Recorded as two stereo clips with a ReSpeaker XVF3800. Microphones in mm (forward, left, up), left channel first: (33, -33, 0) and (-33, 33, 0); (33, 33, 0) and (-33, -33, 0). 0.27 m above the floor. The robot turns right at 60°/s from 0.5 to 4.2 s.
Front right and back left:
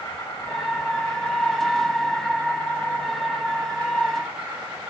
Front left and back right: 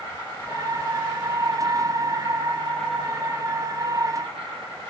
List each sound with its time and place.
0.0 s an insect: 15° right, 8.5 m; by 4.9 s 150° right, 8.5 m